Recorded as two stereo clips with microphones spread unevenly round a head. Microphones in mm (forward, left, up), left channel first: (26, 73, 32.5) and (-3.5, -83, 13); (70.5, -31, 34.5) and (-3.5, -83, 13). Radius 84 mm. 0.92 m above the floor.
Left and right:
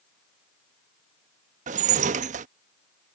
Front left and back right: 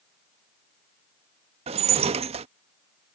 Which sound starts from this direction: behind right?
Dishes clattering, at 1.7 s.